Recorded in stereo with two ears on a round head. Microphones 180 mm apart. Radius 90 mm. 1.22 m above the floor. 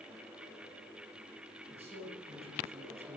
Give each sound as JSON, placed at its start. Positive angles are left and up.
{"t": 1.7, "sound": "a man speaking", "side_deg": -30, "distance_m": 9.5}